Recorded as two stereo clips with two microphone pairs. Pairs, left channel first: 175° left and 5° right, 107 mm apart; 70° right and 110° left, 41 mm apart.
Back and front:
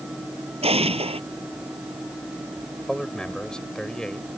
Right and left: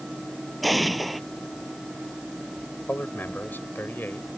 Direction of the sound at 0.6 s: 20° left.